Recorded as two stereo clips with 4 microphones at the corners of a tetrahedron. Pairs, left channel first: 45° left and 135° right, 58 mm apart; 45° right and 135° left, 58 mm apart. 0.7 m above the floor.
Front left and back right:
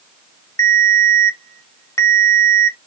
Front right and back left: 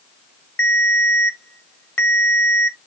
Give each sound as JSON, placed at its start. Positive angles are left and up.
{"t": 0.6, "sound": "a ringtone", "azimuth_deg": 10, "distance_m": 0.9}